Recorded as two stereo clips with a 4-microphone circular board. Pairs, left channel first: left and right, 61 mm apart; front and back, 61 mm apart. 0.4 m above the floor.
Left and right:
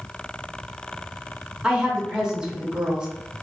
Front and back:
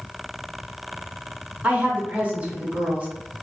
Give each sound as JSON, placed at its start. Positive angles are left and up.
{"t": 1.6, "sound": "a woman speaking", "azimuth_deg": -150, "distance_m": 0.8}